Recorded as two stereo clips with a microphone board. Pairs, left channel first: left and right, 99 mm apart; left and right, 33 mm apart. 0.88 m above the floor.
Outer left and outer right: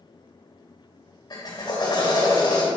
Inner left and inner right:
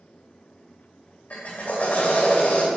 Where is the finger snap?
I don't hear a finger snap.